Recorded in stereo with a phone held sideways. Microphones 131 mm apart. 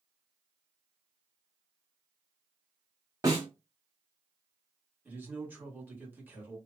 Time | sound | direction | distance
3.2 | a snare drum | 25° right (ahead or behind) | 1.2 m
5.0 | a man speaking | 15° right (ahead or behind) | 1.2 m